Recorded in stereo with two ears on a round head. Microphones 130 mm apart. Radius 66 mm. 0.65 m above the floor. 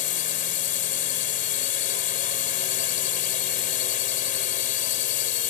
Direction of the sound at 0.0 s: 60° left (ahead or behind).